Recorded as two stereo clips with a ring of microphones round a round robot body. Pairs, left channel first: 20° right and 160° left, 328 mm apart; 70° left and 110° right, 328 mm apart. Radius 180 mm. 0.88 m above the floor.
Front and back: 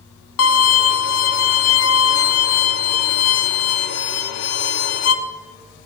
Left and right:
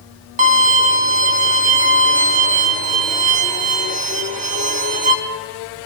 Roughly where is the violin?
Ahead right.